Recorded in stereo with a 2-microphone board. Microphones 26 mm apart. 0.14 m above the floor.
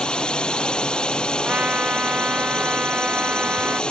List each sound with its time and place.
0.0 s a drone: 40° left (ahead or behind)
1.4 s a trumpet: 75° right (ahead or behind)